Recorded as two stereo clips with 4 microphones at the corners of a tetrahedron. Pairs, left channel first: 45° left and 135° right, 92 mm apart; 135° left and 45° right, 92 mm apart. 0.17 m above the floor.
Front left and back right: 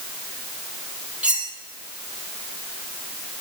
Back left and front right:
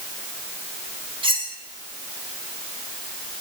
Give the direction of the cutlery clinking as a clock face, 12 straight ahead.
2 o'clock.